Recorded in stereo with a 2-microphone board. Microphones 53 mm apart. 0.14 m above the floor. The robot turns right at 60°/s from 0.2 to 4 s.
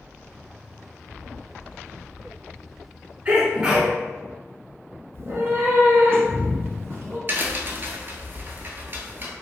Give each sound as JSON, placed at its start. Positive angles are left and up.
{"t": 3.2, "sound": "a sneeze", "azimuth_deg": -45, "distance_m": 1.3}
{"t": 5.1, "sound": "a cat meowing", "side_deg": -40, "distance_m": 0.8}
{"t": 7.3, "sound": "a crack", "side_deg": -45, "distance_m": 0.6}